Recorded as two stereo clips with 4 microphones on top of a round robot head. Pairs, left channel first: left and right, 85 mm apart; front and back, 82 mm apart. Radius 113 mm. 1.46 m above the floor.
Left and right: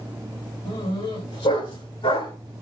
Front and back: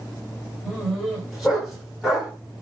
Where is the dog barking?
90° left, 8.5 m; by 2.3 s 95° left, 6.5 m.